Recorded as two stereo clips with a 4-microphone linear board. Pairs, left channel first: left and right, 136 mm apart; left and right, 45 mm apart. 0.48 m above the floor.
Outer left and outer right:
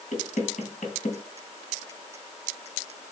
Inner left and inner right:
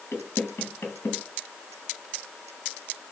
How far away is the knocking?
About 2.5 m.